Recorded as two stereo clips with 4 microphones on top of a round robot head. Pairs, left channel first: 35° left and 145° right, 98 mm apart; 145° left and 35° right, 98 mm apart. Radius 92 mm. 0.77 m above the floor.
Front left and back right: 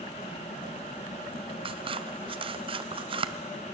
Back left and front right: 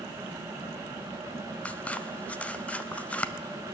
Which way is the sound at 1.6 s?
145° right.